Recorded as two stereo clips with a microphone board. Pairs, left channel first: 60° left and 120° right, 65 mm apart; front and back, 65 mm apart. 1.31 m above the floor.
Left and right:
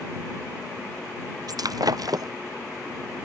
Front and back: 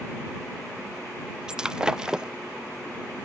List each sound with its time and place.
1.5 s breaking glass: 100° right